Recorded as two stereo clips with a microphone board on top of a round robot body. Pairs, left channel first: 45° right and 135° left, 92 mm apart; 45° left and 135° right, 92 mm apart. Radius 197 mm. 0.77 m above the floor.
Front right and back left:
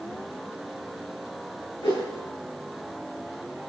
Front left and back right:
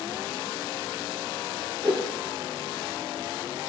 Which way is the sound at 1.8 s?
55° right.